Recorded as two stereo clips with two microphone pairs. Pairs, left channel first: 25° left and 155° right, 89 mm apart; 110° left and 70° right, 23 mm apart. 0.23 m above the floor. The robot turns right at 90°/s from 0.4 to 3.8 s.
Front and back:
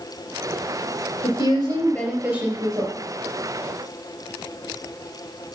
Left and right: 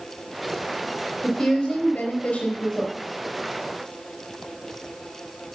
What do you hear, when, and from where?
1.2 s a woman speaking: 30° left, 4.5 m; by 3.0 s 175° right, 4.5 m